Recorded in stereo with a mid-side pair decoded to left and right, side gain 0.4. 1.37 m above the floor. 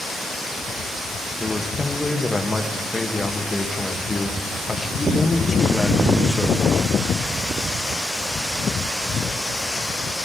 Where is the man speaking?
20° left, 1.2 m.